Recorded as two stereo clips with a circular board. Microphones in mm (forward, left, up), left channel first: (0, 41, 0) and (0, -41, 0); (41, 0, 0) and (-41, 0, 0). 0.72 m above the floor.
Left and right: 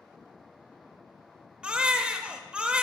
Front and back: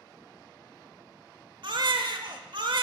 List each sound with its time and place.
1.6 s a baby crying: 165° right, 0.8 m